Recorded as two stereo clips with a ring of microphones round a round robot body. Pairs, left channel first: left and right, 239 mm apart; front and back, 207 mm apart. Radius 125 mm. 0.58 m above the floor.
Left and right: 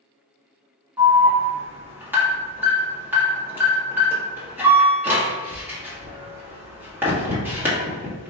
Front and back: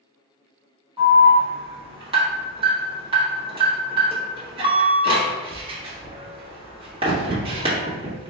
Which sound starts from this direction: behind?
An alarm, at 1.0 s.